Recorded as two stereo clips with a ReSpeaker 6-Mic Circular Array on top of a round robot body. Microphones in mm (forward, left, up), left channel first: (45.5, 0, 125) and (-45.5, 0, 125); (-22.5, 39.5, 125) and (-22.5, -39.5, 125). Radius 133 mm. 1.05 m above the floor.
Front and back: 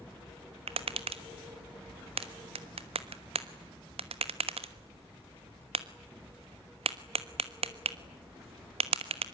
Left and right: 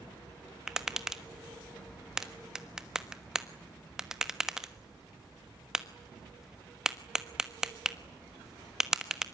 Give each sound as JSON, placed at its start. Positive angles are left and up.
{"t": 0.7, "sound": "tapping", "azimuth_deg": -175, "distance_m": 1.3}